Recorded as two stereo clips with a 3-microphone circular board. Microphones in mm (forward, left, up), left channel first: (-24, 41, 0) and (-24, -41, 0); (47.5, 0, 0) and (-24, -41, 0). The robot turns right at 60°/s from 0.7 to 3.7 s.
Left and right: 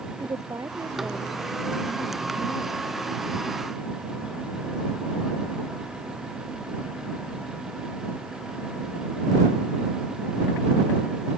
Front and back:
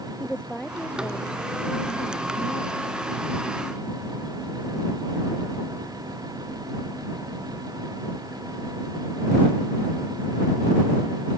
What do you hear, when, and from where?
0.2 s a woman speaking: 50° right; by 2.8 s 80° left